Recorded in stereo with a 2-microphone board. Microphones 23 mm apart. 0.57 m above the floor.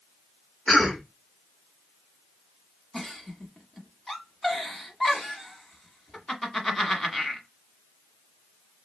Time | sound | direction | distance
0.7 | a cough | 25° left (ahead or behind) | 1.3 m
2.9 | a giggle | 20° left (ahead or behind) | 1.2 m